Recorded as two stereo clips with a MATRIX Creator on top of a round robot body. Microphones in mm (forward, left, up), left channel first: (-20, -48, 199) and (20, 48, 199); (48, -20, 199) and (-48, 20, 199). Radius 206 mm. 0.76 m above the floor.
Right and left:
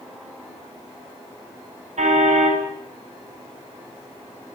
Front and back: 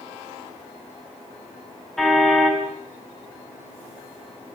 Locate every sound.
2.0 s a car horn: 65° left, 5 m